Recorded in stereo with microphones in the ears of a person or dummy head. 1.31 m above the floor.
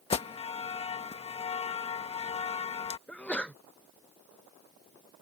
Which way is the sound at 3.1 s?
5° left (ahead or behind).